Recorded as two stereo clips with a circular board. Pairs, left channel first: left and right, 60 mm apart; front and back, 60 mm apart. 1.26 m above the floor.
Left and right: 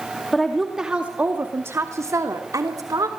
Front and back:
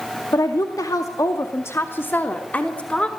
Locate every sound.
0.3 s a woman speaking: 5° left, 2 m; by 3.1 s 75° right, 3.5 m